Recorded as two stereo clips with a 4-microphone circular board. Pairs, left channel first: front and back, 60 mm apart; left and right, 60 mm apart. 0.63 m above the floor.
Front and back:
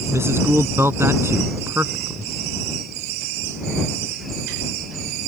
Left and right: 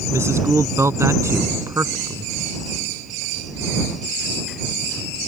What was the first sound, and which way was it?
A man speaking, 135° right.